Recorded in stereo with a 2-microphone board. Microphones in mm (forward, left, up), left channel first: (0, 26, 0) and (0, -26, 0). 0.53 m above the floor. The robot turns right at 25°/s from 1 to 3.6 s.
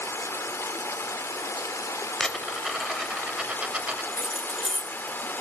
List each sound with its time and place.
0.0 s running water: 70° left, 0.8 m; by 5.4 s 135° left, 0.8 m
2.2 s a dropped coin: 10° left (ahead or behind), 0.8 m; by 4.0 s 25° right (ahead or behind), 0.8 m
4.1 s keys jangling: 10° right (ahead or behind), 0.6 m